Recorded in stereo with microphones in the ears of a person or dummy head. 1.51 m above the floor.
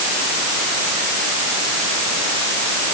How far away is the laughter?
I don't hear laughter.